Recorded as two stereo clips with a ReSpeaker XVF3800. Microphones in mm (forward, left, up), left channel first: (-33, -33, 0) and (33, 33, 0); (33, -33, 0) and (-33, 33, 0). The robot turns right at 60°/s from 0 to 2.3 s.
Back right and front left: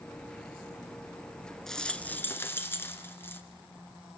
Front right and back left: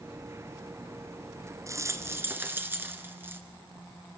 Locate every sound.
1.7 s a rattle: 140° left, 1.9 m; by 3.4 s straight behind, 1.9 m